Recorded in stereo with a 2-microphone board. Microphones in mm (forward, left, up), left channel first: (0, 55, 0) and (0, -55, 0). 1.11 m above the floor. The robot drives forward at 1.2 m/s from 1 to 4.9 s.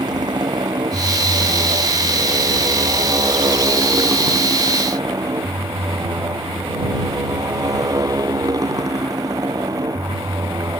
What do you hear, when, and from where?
0.0 s a motorcycle: 40° right (ahead or behind); by 10.8 s 35° right (ahead or behind)